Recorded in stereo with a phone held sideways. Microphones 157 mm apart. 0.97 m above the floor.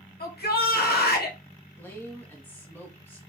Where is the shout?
75° left (ahead or behind), 1.6 m.